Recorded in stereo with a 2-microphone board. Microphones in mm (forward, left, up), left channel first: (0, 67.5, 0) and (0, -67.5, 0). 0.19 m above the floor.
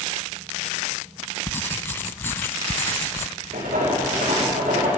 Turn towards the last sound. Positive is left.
turn(degrees=-80)